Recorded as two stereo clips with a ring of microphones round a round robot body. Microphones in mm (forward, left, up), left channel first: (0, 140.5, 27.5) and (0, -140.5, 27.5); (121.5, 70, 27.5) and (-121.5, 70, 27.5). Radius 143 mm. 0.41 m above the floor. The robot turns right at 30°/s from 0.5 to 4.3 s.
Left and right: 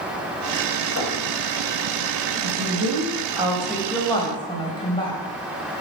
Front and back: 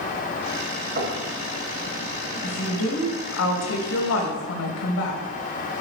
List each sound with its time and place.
1.0 s knocking: 130° left, 2.5 m; by 1.2 s 140° left, 2.5 m
2.4 s a woman speaking: 40° right, 2 m; by 5.2 s 15° left, 2 m